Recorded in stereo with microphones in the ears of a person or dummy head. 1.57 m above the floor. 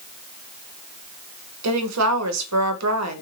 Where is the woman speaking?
80° right, 0.8 m.